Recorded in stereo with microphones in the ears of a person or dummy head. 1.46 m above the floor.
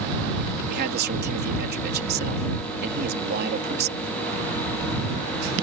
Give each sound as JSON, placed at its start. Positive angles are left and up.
{"t": 0.7, "sound": "a man speaking", "side_deg": -45}